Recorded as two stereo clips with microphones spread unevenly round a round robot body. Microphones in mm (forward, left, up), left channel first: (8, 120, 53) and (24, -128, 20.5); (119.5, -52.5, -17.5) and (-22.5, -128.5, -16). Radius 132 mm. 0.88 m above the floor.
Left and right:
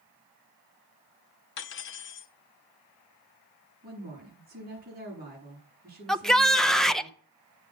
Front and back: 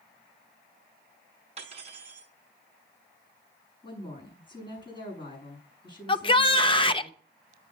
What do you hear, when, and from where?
1.6 s cutlery clinking: 140° left, 0.8 m
3.8 s a woman speaking: 30° right, 7.5 m
6.1 s a shout: 5° right, 0.8 m